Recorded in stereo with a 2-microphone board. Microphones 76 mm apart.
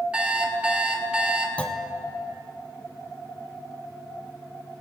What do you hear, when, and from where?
0.1 s an alarm clock: 15° right (ahead or behind), 1.2 m
1.6 s a clunk: 15° left (ahead or behind), 0.6 m